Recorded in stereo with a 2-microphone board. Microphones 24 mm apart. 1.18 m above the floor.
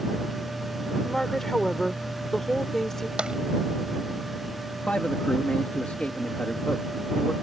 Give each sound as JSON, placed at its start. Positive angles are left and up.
{"t": 1.0, "sound": "a woman speaking", "side_deg": 15}
{"t": 3.2, "sound": "tapping", "side_deg": -45}
{"t": 4.9, "sound": "a man speaking", "side_deg": 70}